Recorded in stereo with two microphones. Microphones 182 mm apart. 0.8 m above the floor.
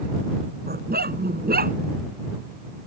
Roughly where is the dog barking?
Right.